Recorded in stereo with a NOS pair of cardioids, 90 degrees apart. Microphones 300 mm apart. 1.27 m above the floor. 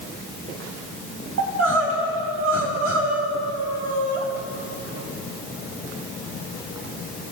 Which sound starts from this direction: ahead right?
Crying, at 1.4 s.